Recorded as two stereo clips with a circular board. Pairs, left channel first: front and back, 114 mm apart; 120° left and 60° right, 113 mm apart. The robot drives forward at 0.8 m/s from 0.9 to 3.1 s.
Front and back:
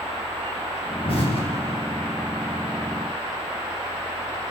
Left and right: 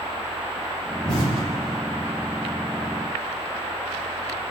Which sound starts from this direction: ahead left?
An explosion, at 1.1 s.